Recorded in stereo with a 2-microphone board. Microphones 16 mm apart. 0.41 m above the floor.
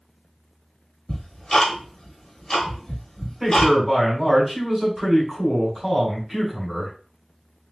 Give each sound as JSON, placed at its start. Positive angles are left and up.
{"t": 1.1, "sound": "ticking", "side_deg": 40, "distance_m": 1.0}
{"t": 3.4, "sound": "a man speaking", "side_deg": -10, "distance_m": 1.7}